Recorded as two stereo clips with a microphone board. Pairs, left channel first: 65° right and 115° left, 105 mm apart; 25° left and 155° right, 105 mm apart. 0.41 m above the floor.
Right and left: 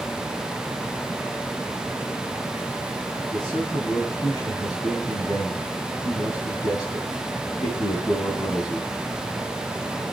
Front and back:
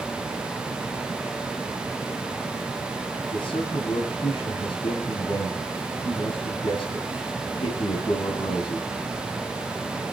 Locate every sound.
3.3 s a man speaking: 15° right, 3 m